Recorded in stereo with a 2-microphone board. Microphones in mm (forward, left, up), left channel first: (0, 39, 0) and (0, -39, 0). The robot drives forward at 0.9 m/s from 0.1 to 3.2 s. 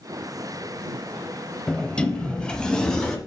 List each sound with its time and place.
1.7 s a sliding door: 15° left (ahead or behind), 0.7 m; by 3.2 s 5° left (ahead or behind), 1.3 m